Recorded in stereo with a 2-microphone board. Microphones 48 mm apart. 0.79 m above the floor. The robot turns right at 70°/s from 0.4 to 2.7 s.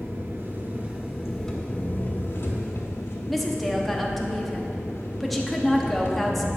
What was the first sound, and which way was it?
An engine running, 70° right.